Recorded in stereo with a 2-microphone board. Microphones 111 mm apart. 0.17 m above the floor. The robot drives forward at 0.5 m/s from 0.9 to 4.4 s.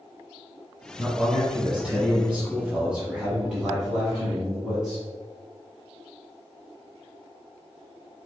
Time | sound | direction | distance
1.0 | a man speaking | 10° right (ahead or behind) | 1.6 m